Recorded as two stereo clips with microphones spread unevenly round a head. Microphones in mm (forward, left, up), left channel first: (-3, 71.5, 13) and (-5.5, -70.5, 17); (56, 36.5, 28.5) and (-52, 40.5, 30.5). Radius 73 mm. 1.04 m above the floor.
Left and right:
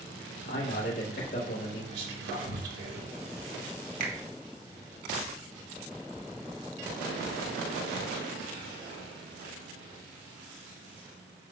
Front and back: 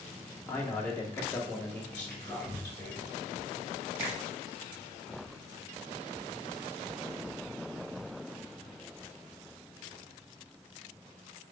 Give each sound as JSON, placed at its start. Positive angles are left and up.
{"t": 0.5, "sound": "a man speaking", "azimuth_deg": 70, "distance_m": 3.0}
{"t": 1.9, "sound": "whispering", "azimuth_deg": -80, "distance_m": 3.5}
{"t": 4.0, "sound": "a finger snap", "azimuth_deg": -55, "distance_m": 1.7}